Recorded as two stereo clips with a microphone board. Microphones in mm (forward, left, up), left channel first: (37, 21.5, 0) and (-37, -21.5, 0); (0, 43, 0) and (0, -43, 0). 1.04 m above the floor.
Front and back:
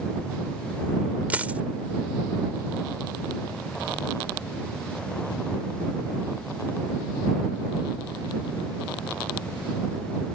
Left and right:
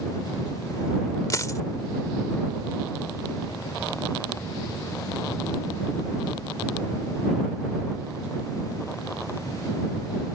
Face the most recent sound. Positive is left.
turn(degrees=140)